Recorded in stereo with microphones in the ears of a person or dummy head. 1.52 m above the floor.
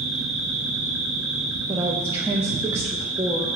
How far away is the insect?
About 2.5 m.